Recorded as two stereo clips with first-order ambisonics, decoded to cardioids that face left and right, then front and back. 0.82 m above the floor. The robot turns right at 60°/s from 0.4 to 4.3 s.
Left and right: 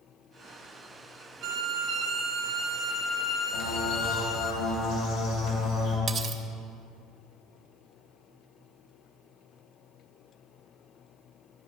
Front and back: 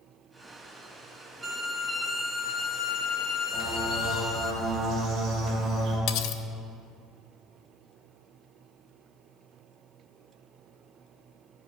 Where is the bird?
75° left, 2 m; by 6.0 s 120° left, 2 m.